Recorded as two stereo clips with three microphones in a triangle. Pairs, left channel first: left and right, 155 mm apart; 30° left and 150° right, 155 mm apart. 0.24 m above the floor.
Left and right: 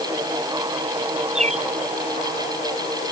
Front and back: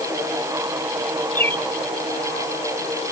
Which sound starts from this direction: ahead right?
A bird, at 1.4 s.